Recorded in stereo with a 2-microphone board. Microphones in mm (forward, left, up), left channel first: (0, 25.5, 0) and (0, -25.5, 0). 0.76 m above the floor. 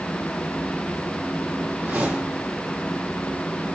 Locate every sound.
1.8 s a whoosh: 40° right (ahead or behind), 5.5 m